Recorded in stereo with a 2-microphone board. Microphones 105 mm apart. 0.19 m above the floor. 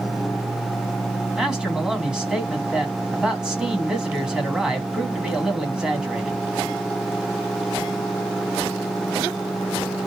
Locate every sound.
1.4 s a man speaking: 10° right (ahead or behind), 1.9 m